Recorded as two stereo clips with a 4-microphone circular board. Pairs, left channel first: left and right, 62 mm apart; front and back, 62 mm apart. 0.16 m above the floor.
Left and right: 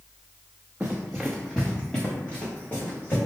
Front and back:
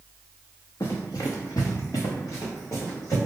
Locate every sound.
0.8 s running footsteps: 20° right, 0.8 m; by 3.2 s 30° left, 2 m